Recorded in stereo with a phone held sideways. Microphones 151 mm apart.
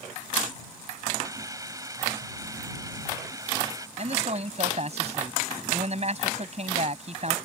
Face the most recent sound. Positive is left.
turn(degrees=-45)  # may be behind; listen again after turning